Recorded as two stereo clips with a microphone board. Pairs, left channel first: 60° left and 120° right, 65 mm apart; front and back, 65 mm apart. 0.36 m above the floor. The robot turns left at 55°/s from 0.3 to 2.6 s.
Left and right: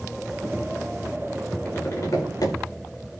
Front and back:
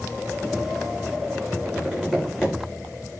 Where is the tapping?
125° left, 9.5 m; by 2.5 s 75° left, 9.5 m.